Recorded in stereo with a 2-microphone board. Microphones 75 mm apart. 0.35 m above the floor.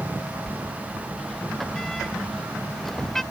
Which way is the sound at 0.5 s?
5° left (ahead or behind).